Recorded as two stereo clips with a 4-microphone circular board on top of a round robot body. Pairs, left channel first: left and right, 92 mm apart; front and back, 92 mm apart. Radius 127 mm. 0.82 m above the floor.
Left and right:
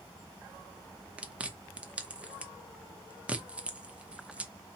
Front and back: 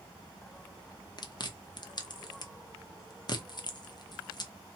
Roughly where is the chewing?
Ahead.